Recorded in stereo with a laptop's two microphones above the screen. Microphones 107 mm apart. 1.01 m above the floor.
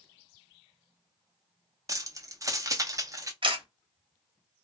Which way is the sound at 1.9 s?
30° right (ahead or behind).